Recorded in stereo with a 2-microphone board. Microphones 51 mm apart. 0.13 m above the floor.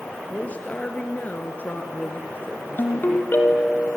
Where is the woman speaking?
25° left (ahead or behind), 2.5 m; by 3.3 s 40° left (ahead or behind), 1.9 m.